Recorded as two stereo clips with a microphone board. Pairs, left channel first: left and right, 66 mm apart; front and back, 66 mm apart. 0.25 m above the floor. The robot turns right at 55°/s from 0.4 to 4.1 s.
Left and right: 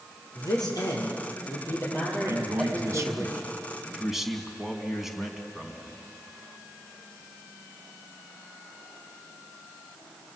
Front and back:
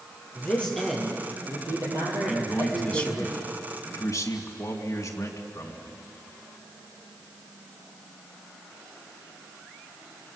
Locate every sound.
0.3 s a man speaking: 65° left, 7 m; by 3.3 s 140° right, 7 m
2.3 s a man speaking: 105° right, 2.5 m; by 6.0 s 5° right, 2.5 m